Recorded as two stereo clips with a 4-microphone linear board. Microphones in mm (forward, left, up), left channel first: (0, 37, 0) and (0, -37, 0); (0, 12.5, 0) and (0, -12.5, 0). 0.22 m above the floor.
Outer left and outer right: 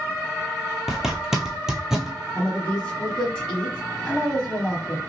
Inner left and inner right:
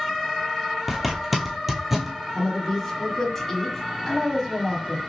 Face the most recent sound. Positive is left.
turn(degrees=15)  # may be behind; listen again after turning